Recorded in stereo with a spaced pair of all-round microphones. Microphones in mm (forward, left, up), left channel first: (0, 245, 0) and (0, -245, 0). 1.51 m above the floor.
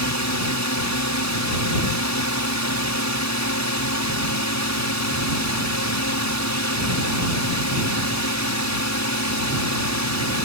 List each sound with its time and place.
0.0 s a drone: 35° left (ahead or behind)